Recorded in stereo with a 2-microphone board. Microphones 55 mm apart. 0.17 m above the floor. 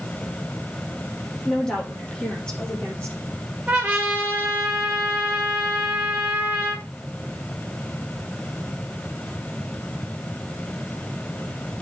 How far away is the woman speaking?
About 6.5 m.